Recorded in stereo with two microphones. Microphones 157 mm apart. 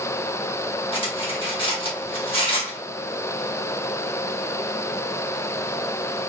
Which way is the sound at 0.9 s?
35° left (ahead or behind).